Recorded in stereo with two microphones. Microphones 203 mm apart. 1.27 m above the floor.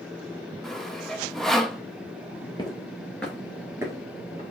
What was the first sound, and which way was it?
Sawing, centre (ahead or behind).